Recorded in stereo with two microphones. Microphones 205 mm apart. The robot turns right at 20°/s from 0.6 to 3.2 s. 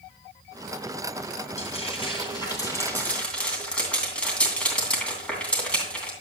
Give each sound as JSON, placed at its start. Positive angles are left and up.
{"t": 1.6, "sound": "frying", "side_deg": 35, "distance_m": 3.0}